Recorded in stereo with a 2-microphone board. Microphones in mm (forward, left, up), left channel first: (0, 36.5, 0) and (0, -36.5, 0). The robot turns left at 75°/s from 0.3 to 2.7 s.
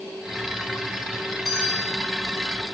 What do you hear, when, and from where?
1.4 s a bell: straight behind, 6 m; by 2.0 s 135° left, 6 m